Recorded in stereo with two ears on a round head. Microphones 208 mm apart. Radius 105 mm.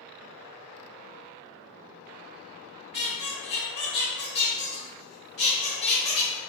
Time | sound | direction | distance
2.9 | a squeak | 45° left (ahead or behind) | 1.0 m